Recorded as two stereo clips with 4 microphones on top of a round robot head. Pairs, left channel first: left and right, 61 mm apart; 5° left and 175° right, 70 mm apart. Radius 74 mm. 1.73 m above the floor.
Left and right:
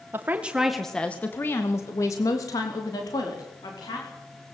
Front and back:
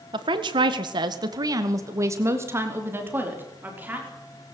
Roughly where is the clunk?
No clunk in this recording.